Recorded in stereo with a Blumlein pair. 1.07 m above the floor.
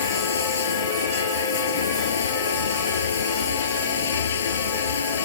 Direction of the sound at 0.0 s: 65° left.